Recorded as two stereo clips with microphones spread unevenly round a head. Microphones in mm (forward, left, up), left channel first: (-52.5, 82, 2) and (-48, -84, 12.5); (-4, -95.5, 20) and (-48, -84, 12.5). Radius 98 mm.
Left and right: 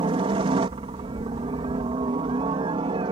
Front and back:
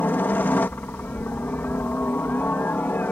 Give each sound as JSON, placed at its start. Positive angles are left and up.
{"t": 0.0, "sound": "a helicopter", "azimuth_deg": -35}